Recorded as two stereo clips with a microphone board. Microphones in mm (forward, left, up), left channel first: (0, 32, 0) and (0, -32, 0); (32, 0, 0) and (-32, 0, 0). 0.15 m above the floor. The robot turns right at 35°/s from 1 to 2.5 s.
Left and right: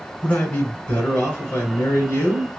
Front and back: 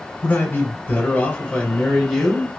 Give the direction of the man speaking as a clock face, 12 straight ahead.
11 o'clock.